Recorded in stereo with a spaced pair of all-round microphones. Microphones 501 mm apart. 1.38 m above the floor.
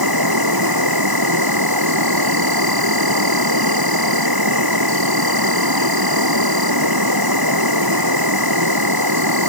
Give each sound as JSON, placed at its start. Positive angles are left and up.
{"t": 0.0, "sound": "an insect", "side_deg": -45}